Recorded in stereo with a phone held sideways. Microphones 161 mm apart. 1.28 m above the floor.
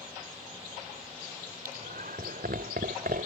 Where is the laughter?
70° right (ahead or behind).